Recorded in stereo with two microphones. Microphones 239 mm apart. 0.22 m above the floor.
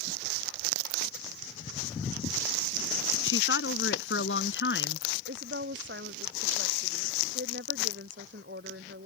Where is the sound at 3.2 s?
60° left (ahead or behind); by 5.1 s 50° left (ahead or behind).